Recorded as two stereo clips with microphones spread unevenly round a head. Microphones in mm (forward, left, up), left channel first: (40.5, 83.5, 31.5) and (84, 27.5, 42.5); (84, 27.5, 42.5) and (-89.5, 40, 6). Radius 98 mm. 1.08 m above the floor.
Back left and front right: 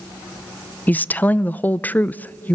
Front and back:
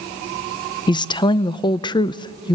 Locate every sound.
0.9 s a woman speaking: 65° left, 0.5 m